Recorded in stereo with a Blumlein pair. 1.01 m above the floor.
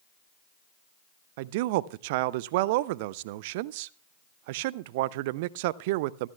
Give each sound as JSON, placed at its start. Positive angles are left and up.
{"t": 1.4, "sound": "a man speaking", "azimuth_deg": -50, "distance_m": 0.5}